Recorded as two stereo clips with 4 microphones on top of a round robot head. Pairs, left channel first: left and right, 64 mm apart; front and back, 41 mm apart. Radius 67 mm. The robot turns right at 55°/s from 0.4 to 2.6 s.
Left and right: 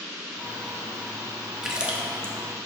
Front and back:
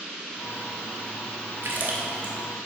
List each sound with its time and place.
1.6 s a splash: 170° right, 1.1 m; by 2.3 s 130° right, 1.1 m